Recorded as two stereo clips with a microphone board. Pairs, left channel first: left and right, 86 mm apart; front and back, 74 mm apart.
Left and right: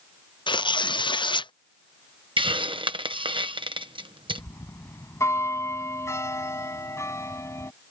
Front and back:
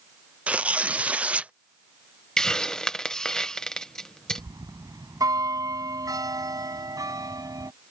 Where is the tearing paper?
110° left.